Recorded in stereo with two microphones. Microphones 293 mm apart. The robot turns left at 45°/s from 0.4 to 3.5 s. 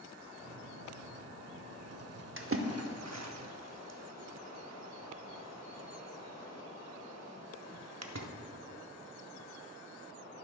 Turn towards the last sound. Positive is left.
turn(degrees=-60)  # may be behind; listen again after turning